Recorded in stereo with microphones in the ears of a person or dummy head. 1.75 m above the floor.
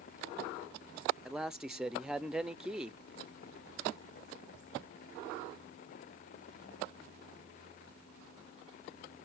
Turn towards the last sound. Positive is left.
turn(degrees=-5)  # may be behind; listen again after turning